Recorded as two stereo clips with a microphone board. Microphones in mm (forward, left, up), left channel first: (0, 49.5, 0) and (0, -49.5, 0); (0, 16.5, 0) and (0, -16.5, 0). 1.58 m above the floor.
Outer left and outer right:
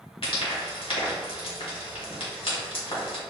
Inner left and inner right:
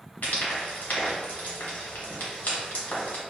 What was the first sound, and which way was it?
Frying, 65° left (ahead or behind).